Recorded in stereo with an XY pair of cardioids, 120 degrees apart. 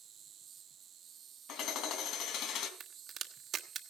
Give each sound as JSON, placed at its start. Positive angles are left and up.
{"t": 0.0, "sound": "an insect", "azimuth_deg": -50, "distance_m": 1.0}
{"t": 1.5, "sound": "hammering", "azimuth_deg": 70, "distance_m": 3.5}
{"t": 2.8, "sound": "a crack", "azimuth_deg": -50, "distance_m": 1.5}